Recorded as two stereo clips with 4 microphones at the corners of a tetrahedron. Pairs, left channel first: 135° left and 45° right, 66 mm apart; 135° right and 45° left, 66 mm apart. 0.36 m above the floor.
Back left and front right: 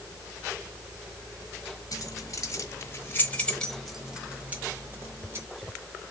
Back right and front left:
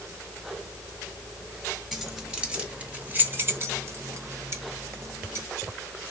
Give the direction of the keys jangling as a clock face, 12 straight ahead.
8 o'clock.